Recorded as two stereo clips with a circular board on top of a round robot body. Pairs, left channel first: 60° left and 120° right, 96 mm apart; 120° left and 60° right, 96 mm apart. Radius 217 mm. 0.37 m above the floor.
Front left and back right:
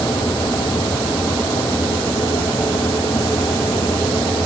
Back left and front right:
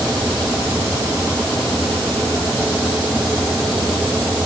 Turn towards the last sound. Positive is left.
No sound to turn to.